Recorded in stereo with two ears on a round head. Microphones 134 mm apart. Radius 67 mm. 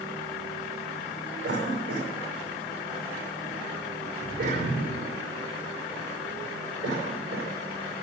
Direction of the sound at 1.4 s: 75° right (ahead or behind).